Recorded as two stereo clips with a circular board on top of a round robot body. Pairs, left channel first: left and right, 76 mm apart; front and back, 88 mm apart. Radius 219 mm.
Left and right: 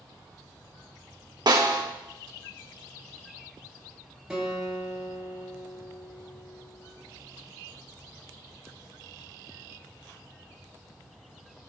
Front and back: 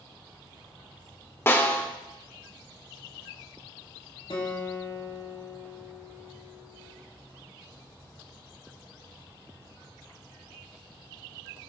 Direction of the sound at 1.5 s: 65° right.